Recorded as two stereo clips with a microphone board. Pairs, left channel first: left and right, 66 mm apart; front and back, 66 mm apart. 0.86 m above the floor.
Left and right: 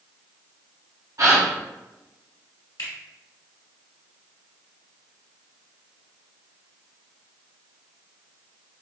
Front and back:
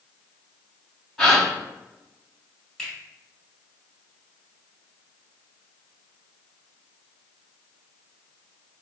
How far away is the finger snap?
About 1.8 m.